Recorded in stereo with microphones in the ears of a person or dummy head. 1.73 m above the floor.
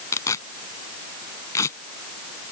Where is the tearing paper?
15° left (ahead or behind).